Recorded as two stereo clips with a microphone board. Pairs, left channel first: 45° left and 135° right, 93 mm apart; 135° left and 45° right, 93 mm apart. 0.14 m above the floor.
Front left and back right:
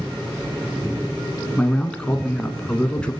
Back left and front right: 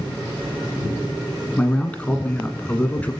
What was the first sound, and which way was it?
A man speaking, 95° left.